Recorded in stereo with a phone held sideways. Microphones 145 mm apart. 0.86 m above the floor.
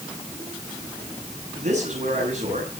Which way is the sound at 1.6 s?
55° right (ahead or behind).